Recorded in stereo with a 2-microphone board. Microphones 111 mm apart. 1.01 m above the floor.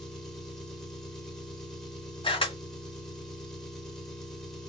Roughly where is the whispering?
I don't hear whispering.